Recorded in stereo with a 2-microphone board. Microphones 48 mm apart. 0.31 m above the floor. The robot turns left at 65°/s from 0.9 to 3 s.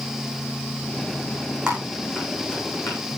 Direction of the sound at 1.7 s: 20° right (ahead or behind).